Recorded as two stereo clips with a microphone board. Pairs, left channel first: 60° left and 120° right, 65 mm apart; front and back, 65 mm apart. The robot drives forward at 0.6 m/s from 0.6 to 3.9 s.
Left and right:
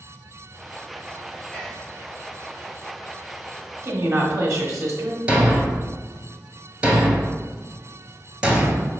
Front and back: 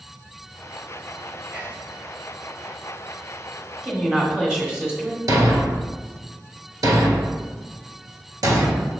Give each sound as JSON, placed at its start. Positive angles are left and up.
{"t": 1.5, "sound": "whispering", "azimuth_deg": 140, "distance_m": 1.6}
{"t": 3.8, "sound": "a woman speaking", "azimuth_deg": -105, "distance_m": 1.3}
{"t": 5.3, "sound": "a thud", "azimuth_deg": 165, "distance_m": 0.8}